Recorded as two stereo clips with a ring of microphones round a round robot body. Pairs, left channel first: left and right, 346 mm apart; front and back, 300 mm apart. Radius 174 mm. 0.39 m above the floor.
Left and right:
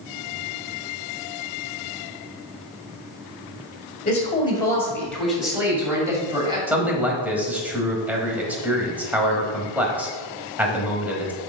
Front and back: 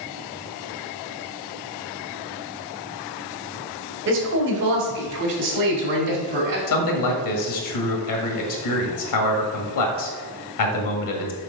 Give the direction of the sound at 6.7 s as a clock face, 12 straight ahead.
12 o'clock.